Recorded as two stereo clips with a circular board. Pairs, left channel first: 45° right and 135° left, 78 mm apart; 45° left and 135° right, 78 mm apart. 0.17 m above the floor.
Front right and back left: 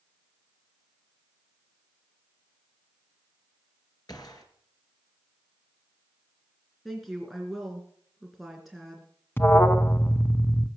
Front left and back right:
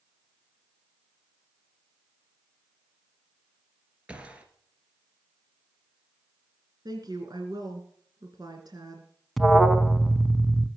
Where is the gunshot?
65° right, 2.5 m.